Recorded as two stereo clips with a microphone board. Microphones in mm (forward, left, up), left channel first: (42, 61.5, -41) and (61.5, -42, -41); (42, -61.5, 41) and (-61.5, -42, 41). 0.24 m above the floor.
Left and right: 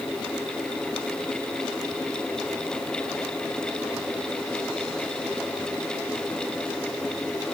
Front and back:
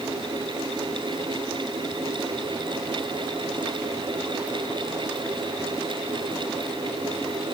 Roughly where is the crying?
No crying in this recording.